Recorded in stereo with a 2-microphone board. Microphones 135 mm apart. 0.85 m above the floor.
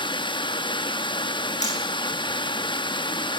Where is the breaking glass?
No breaking glass in this recording.